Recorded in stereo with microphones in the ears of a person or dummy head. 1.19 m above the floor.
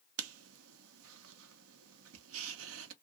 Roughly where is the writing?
Right.